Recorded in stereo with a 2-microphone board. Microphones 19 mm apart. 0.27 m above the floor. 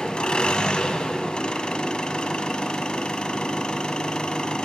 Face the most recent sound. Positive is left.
turn(degrees=55)  # may be behind; listen again after turning